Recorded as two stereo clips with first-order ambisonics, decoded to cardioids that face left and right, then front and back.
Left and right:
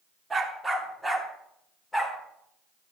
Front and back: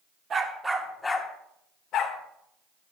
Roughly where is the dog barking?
Behind.